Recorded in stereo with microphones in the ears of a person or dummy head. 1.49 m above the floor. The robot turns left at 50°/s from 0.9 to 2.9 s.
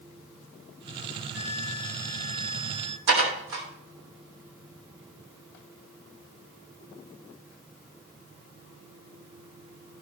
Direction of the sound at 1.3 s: 10° left.